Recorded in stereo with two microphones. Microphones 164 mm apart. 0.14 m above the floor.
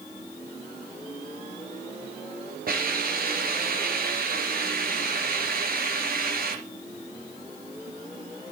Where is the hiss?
60° right (ahead or behind), 3 m.